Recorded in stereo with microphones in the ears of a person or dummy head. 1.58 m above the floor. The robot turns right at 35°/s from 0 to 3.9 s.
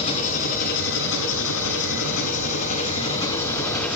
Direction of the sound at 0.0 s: 35° left.